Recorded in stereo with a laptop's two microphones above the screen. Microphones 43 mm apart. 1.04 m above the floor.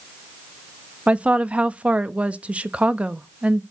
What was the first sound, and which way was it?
A woman speaking, 30° right (ahead or behind).